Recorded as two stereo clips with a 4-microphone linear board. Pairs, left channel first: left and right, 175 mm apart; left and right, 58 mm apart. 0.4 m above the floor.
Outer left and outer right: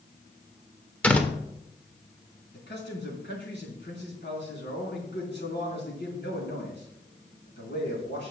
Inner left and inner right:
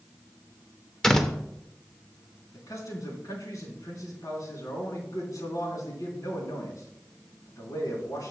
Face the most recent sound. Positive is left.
turn(degrees=70)  # may be behind; listen again after turning